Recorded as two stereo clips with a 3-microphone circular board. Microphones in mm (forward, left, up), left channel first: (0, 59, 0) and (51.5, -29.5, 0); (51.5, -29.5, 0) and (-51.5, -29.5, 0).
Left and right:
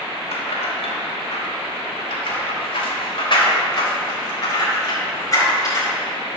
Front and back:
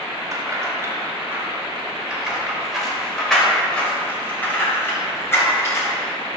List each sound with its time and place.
0.3 s keys jangling: 125° left, 2.5 m; by 5.9 s 65° left, 4 m